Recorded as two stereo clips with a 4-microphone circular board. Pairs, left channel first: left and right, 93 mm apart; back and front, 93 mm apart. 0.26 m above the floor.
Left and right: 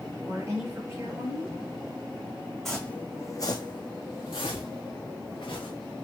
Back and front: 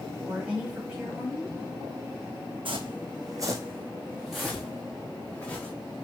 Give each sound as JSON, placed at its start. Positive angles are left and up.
{"t": 0.2, "sound": "a woman speaking", "azimuth_deg": -70, "distance_m": 1.7}
{"t": 2.6, "sound": "footsteps", "azimuth_deg": 5, "distance_m": 0.7}